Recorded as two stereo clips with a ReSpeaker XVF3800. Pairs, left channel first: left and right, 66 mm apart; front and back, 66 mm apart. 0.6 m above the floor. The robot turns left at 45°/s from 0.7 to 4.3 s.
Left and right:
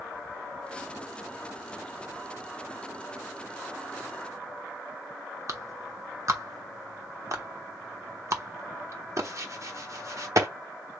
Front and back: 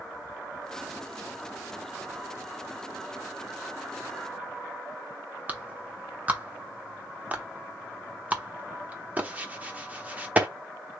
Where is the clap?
115° right, 1.1 m.